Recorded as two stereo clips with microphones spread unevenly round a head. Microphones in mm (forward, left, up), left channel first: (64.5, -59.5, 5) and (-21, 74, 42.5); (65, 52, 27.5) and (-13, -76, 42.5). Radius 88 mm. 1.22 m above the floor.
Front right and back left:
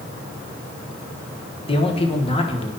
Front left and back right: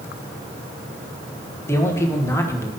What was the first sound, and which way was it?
A man speaking, 10° right.